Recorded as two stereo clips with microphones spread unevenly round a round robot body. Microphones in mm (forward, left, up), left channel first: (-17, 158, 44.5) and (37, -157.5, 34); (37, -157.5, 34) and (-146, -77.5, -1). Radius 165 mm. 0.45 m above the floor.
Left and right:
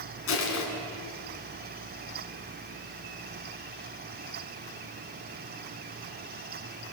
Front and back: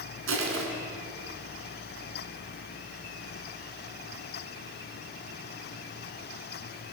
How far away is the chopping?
I don't hear chopping.